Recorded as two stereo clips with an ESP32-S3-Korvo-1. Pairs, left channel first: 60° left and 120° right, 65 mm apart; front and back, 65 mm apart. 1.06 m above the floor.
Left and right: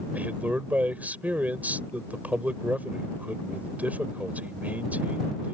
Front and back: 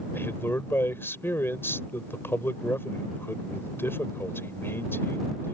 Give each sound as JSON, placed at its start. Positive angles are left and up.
{"t": 0.1, "sound": "a man speaking", "azimuth_deg": -55}